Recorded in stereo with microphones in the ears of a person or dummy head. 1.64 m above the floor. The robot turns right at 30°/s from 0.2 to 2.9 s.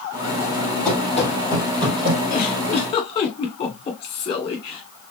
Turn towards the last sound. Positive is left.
turn(degrees=35)  # may be behind; listen again after turning